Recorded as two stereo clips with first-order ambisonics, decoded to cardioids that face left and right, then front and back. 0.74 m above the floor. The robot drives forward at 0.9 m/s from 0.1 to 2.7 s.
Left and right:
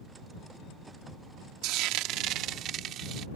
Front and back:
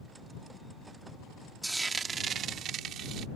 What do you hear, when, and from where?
1.6 s frying: 95° right; by 3.3 s 135° right